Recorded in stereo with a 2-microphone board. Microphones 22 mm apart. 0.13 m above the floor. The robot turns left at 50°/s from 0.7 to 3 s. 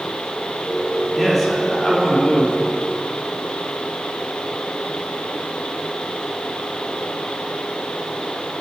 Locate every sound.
1.1 s a man speaking: 175° right, 4.5 m; by 2.6 s 110° left, 4.5 m